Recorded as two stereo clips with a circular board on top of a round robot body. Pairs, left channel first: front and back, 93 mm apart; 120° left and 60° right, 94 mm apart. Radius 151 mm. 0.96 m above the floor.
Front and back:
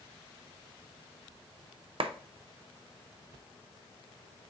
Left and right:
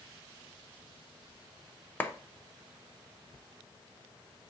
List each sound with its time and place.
2.0 s a clap: 170° right, 0.6 m